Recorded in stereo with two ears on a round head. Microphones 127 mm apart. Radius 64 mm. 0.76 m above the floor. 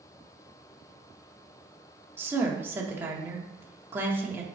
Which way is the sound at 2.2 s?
15° right (ahead or behind).